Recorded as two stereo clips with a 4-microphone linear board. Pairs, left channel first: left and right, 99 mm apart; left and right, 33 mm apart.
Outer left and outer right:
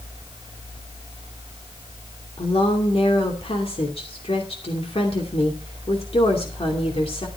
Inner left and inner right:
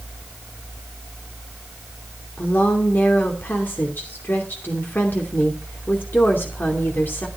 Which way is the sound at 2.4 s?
75° left (ahead or behind).